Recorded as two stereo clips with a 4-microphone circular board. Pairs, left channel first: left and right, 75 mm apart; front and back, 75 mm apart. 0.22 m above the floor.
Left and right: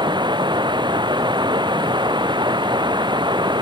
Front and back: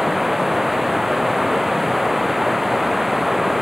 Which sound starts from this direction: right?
Running water, at 0.0 s.